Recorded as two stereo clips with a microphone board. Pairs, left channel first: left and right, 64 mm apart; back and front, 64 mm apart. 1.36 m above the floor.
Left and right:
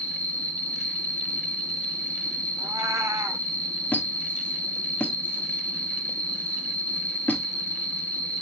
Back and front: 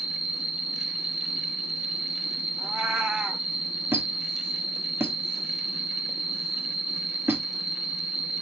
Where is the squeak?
35° left, 1.0 m.